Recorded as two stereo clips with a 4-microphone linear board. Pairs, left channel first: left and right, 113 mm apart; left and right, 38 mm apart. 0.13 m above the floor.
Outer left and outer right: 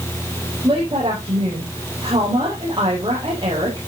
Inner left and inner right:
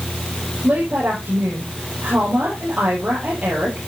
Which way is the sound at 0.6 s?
40° right (ahead or behind).